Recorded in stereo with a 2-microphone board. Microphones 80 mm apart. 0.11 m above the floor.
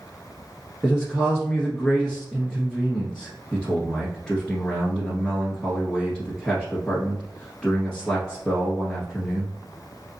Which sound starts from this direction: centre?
A man speaking, at 0.8 s.